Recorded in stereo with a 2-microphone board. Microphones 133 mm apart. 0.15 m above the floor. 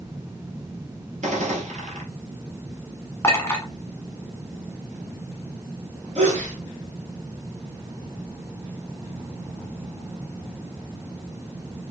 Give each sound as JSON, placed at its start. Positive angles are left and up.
{"t": 1.2, "sound": "a gunshot", "side_deg": -65, "distance_m": 1.7}
{"t": 3.2, "sound": "a clink", "side_deg": 15, "distance_m": 1.2}
{"t": 6.2, "sound": "a sneeze", "side_deg": -55, "distance_m": 2.5}